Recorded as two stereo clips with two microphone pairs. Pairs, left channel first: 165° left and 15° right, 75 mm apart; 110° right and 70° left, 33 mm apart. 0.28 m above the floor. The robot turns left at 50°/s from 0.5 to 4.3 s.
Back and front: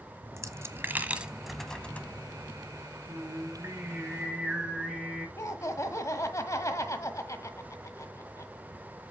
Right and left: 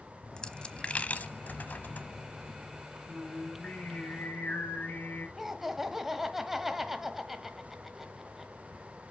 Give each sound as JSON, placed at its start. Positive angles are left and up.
{"t": 0.2, "sound": "a dropped coin", "azimuth_deg": -50, "distance_m": 0.9}
{"t": 3.1, "sound": "singing", "azimuth_deg": -35, "distance_m": 3.5}
{"t": 5.4, "sound": "laughter", "azimuth_deg": 150, "distance_m": 1.2}